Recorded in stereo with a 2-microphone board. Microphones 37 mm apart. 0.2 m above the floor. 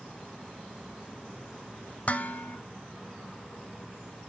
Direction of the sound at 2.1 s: 40° left (ahead or behind).